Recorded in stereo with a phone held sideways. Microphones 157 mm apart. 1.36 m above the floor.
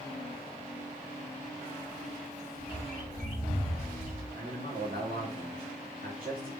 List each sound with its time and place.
2.6 s a bird: 70° right (ahead or behind), 4 m
4.3 s a man speaking: 65° right (ahead or behind), 3 m